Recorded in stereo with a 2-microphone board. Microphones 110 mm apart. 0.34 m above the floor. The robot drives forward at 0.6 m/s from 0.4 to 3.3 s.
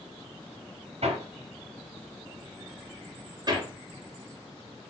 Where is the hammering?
75° right (ahead or behind), 1.3 m; by 4.9 s 40° right (ahead or behind), 2 m.